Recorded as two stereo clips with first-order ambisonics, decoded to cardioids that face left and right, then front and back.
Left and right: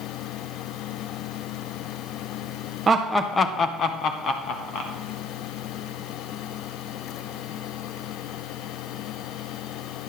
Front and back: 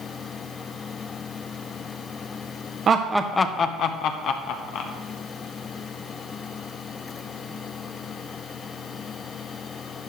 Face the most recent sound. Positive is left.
turn(degrees=40)